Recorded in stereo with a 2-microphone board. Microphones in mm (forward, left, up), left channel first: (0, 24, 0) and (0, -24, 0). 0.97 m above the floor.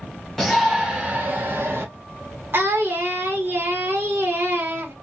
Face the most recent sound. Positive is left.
turn(degrees=-50)  # may be behind; listen again after turning